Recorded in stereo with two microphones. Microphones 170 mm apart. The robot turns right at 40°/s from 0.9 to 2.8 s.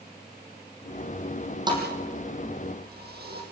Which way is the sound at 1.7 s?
25° right (ahead or behind).